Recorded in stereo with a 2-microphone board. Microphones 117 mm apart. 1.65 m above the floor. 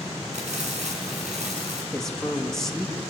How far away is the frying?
About 5.5 m.